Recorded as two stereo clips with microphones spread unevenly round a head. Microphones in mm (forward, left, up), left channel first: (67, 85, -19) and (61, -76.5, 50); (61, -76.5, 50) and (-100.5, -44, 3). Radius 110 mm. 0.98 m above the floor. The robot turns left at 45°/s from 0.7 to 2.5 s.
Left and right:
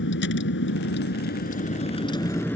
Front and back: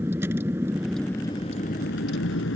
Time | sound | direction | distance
0.0 | a vehicle | 85° left | ?